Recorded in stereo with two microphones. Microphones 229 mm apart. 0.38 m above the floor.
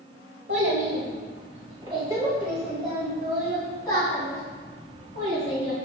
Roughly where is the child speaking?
Right.